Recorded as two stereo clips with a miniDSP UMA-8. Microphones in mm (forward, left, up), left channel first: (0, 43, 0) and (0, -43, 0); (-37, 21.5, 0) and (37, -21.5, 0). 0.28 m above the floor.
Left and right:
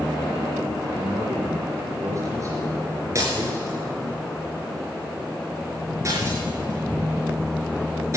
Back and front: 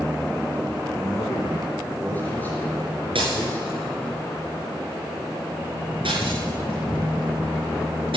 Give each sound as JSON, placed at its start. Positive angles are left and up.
{"t": 0.9, "sound": "a man speaking", "azimuth_deg": -140, "distance_m": 4.0}
{"t": 3.1, "sound": "breaking glass", "azimuth_deg": -35, "distance_m": 6.0}